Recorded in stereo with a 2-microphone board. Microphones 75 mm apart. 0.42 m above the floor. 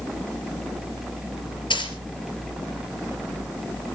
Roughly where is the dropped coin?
Left.